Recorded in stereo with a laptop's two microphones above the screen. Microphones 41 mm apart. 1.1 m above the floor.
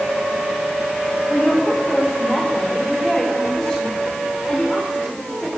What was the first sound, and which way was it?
A woman speaking, 5° left (ahead or behind).